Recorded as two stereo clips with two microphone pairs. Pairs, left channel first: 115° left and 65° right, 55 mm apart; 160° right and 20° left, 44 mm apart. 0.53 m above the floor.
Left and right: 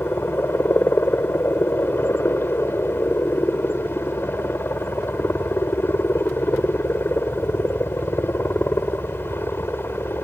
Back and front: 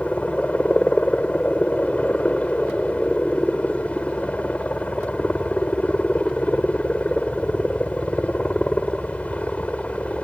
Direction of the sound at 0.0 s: 145° left.